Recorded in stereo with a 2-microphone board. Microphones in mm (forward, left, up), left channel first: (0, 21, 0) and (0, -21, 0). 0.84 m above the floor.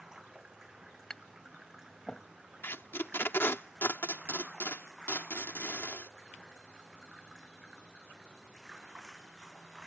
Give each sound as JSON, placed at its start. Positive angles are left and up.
{"t": 0.0, "sound": "running water", "side_deg": -10}
{"t": 1.1, "sound": "tapping", "side_deg": 20}
{"t": 2.6, "sound": "tape being pulled", "side_deg": 65}